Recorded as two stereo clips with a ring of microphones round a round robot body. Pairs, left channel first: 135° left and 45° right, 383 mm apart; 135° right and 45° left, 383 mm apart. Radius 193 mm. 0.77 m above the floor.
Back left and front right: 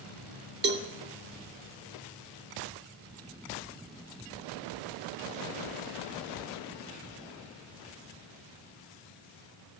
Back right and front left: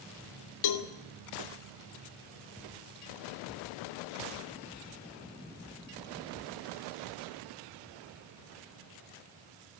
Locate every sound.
0.6 s a cowbell: 110° right, 2 m